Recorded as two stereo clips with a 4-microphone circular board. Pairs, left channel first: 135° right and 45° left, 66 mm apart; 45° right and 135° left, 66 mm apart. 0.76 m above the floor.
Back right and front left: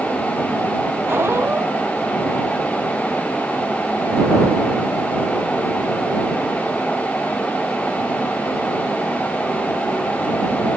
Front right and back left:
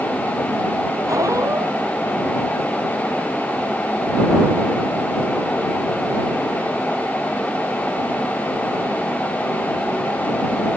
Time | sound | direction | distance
1.1 | a squeak | 100° left | ?